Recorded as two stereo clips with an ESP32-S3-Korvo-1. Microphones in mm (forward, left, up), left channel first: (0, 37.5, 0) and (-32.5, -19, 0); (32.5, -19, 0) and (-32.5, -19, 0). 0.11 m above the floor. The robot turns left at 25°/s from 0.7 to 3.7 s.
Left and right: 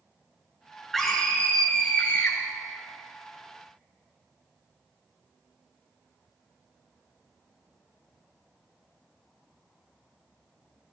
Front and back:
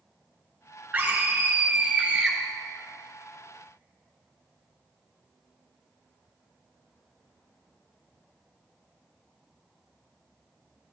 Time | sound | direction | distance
0.9 | a scream | 145° left | 1.2 m